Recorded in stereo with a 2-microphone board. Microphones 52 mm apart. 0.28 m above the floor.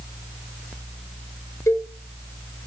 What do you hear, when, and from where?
1.7 s a cowbell: 80° left, 1.0 m